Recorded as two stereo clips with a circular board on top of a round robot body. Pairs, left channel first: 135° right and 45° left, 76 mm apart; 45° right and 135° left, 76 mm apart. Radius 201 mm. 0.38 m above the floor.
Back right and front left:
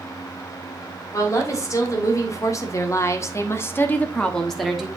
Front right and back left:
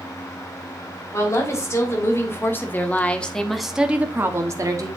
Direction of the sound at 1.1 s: 90° right.